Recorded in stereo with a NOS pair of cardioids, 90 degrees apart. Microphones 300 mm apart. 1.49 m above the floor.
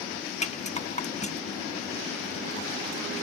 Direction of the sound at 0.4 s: 25° left.